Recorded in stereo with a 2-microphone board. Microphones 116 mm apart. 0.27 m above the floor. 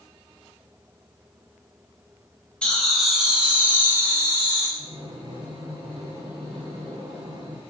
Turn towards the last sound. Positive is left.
turn(degrees=-50)  # may be behind; listen again after turning